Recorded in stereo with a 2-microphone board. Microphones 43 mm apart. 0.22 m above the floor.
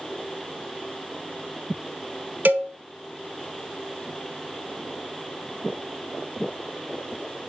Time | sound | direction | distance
2.5 | a cowbell | 45° right (ahead or behind) | 0.5 m